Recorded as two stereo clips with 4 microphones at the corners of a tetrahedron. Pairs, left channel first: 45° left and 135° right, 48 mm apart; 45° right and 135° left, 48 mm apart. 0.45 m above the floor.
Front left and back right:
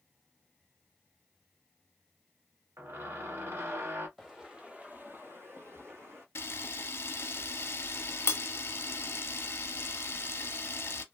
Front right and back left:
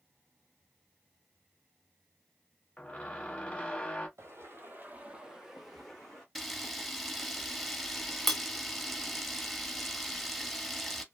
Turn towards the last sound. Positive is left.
turn(degrees=40)